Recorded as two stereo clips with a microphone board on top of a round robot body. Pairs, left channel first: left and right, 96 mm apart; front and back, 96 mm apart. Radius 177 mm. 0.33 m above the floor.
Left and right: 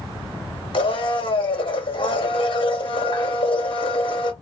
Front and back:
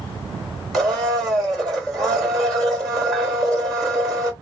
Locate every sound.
0.7 s a blender: 85° left, 2 m